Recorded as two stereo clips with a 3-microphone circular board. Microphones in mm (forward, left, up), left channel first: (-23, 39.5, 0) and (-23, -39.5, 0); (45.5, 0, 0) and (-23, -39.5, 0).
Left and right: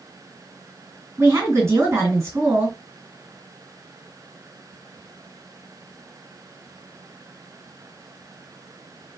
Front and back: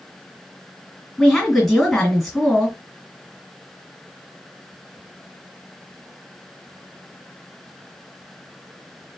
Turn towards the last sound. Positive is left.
turn(degrees=-55)